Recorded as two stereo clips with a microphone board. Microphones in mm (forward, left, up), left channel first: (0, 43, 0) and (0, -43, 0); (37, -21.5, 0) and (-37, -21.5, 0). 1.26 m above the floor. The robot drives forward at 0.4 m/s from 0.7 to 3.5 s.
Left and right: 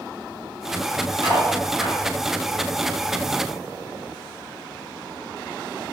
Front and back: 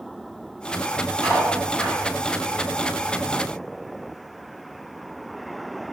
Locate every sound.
1.2 s cutlery clinking: 65° right, 1.6 m; by 2.0 s 75° right, 1.5 m